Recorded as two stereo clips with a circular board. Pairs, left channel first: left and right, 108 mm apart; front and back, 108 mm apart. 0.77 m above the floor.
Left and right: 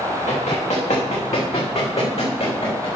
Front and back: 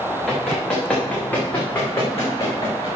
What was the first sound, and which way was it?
Running footsteps, 90° left.